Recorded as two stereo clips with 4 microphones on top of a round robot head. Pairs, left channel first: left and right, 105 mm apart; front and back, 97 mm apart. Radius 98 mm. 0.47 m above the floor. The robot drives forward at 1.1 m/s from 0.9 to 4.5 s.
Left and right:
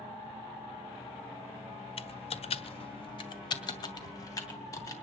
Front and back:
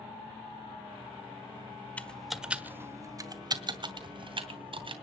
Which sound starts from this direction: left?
Typing on a keyboard, at 2.0 s.